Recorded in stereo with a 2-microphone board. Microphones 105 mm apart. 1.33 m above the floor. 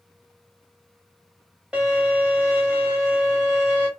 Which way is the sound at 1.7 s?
5° right (ahead or behind).